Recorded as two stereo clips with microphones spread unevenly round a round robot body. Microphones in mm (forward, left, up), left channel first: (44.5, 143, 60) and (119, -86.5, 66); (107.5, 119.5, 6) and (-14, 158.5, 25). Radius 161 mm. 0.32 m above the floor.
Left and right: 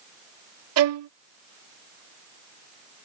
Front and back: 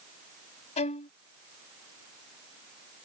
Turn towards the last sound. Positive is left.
turn(degrees=-50)